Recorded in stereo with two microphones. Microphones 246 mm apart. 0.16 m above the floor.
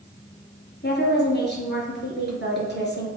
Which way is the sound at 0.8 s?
45° left (ahead or behind).